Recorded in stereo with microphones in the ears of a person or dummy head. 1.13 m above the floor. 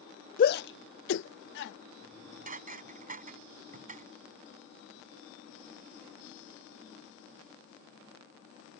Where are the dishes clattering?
40° right (ahead or behind).